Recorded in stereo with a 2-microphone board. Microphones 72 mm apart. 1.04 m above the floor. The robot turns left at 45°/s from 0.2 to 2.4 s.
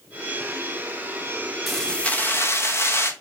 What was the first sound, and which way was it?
Keys jangling, straight behind.